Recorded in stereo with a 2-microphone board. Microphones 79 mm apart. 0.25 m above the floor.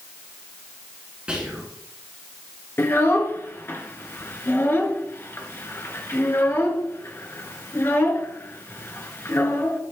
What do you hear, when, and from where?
1.3 s whispering: 15° right (ahead or behind), 2 m
2.8 s a child speaking: 35° left (ahead or behind), 2.0 m